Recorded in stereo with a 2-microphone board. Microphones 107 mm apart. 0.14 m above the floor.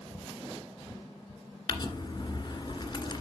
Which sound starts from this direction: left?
Crumpling, at 1.7 s.